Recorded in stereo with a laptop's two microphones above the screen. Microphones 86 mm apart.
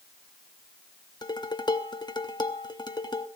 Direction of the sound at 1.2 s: 55° left (ahead or behind).